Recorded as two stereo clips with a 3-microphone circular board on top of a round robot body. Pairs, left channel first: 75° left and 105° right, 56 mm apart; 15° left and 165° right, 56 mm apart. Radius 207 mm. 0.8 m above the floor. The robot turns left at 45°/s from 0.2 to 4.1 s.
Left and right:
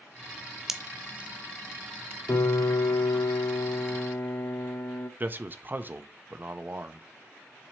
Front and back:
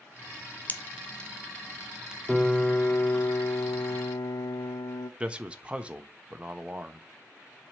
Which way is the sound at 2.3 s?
100° left.